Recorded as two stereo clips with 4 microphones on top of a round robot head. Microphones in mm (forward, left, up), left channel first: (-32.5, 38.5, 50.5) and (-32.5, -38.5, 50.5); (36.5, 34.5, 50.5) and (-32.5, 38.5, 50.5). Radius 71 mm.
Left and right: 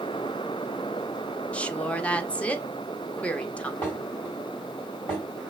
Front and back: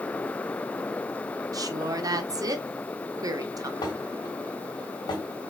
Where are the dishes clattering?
15° left, 2.5 m.